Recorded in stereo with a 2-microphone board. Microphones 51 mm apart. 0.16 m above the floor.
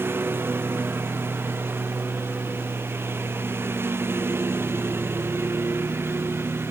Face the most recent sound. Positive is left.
turn(degrees=-55)  # may be behind; listen again after turning